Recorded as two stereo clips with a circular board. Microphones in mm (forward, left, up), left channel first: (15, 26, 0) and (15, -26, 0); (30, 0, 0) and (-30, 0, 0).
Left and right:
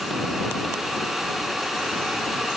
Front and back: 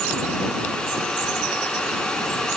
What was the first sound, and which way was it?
Only background noise.